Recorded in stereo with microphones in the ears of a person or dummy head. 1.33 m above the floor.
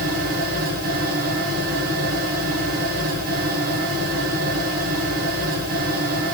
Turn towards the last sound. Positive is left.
turn(degrees=-50)  # may be behind; listen again after turning